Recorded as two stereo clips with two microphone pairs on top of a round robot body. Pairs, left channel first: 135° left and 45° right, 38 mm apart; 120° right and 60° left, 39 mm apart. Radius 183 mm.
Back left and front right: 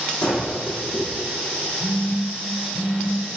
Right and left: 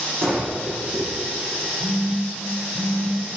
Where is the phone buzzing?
105° left, 7 m.